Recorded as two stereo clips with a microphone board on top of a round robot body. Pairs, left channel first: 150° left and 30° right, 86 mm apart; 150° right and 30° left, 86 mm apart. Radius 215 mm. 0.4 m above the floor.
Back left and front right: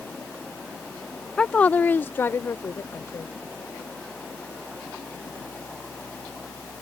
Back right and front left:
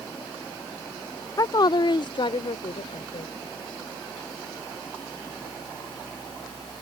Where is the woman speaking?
135° right; by 3.3 s 150° right.